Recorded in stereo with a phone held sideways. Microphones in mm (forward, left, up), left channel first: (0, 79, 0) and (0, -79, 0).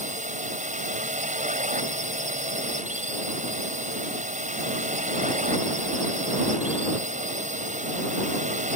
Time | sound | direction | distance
0.0 | a drone | 50° right (ahead or behind) | ?